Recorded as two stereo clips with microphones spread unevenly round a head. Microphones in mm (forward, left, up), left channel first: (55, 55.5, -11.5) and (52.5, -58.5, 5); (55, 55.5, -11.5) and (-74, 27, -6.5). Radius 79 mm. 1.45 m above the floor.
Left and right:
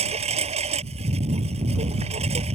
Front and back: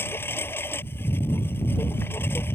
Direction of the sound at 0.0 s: 65° right.